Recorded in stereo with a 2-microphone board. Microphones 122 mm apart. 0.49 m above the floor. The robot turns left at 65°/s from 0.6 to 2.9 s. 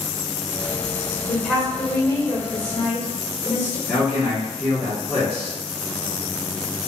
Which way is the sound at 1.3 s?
165° right.